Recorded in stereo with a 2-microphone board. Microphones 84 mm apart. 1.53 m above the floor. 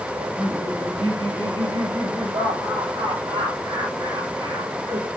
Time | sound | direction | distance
0.1 | laughter | 90° right | 9.5 m